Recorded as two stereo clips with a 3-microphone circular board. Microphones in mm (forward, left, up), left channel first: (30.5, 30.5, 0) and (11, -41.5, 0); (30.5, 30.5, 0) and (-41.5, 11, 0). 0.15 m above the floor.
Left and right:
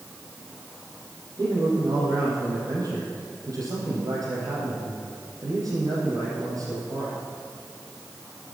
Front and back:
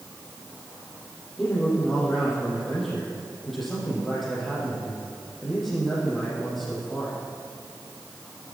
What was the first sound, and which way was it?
A man speaking, 75° right.